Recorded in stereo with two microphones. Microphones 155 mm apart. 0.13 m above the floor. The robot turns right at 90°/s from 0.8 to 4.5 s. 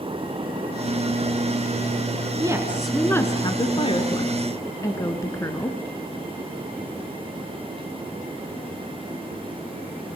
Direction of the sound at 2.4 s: 45° right.